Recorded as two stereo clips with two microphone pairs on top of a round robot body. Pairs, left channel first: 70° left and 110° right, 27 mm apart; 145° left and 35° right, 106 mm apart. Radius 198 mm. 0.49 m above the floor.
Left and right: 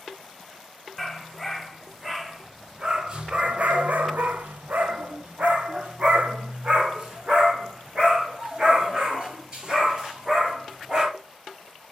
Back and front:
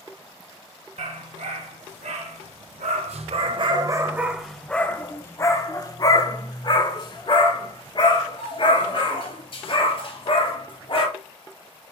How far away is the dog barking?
About 2 m.